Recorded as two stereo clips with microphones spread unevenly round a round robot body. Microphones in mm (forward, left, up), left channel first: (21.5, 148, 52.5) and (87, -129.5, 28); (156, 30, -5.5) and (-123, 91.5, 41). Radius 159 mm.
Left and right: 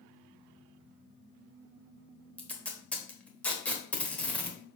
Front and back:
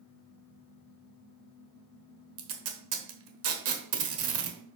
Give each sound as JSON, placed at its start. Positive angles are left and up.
{"t": 2.4, "sound": "tape being pulled", "azimuth_deg": -170, "distance_m": 1.2}